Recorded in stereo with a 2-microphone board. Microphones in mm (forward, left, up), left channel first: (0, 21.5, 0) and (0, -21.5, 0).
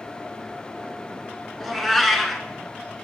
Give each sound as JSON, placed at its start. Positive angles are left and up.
{"t": 1.6, "sound": "a cat meowing", "side_deg": 0, "distance_m": 0.8}